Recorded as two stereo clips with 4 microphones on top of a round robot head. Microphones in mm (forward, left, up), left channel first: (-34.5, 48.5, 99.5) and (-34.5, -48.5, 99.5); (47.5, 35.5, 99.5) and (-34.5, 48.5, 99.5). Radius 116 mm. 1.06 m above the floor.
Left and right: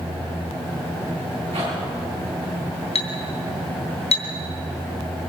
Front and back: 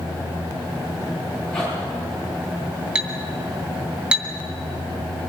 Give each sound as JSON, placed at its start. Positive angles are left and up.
{"t": 1.5, "sound": "a zipper", "azimuth_deg": -90, "distance_m": 9.5}
{"t": 3.0, "sound": "a clink", "azimuth_deg": 95, "distance_m": 3.0}